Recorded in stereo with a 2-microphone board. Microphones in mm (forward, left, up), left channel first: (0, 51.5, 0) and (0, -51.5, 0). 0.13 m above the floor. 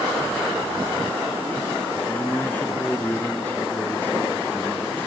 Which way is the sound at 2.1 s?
20° left (ahead or behind).